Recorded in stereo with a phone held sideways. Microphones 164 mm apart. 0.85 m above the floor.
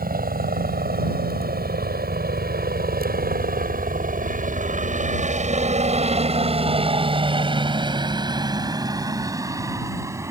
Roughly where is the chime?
No chime in this recording.